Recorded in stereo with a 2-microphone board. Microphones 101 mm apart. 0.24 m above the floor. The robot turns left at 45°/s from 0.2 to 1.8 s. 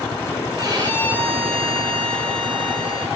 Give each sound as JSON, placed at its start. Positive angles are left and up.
{"t": 0.6, "sound": "a violin", "azimuth_deg": -35, "distance_m": 4.5}